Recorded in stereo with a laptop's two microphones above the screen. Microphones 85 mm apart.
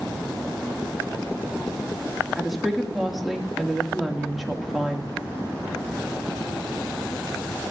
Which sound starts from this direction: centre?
A woman speaking, at 2.4 s.